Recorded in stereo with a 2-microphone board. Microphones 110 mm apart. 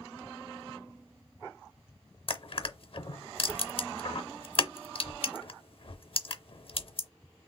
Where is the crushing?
55° left (ahead or behind), 0.6 m.